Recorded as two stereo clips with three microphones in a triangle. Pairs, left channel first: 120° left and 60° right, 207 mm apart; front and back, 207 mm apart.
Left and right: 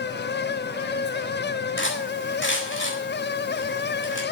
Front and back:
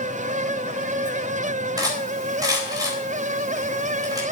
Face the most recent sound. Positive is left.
turn(degrees=110)